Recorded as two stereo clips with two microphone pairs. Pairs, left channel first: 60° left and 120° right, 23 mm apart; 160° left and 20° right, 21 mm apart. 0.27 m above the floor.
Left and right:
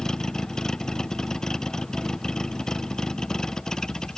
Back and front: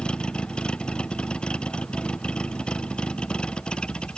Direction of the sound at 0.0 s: 125° left.